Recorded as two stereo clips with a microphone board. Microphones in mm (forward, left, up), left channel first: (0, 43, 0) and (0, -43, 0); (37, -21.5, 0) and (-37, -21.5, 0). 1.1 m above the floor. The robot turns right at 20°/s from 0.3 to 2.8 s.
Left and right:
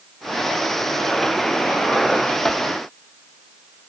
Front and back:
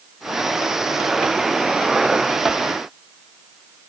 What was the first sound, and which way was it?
Only background noise.